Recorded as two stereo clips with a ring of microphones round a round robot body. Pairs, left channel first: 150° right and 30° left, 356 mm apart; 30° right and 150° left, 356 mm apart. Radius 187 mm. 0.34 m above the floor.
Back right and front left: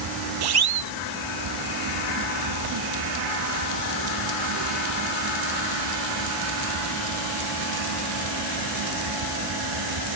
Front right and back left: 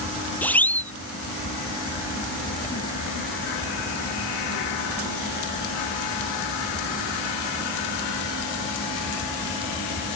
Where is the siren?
55° left.